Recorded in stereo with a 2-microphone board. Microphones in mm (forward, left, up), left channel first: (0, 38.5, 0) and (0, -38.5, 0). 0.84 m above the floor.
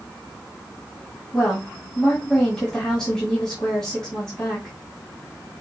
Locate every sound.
1.3 s a woman speaking: 5° left (ahead or behind), 2.5 m